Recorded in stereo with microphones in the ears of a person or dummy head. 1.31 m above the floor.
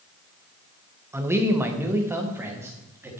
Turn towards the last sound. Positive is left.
turn(degrees=-15)  # may be behind; listen again after turning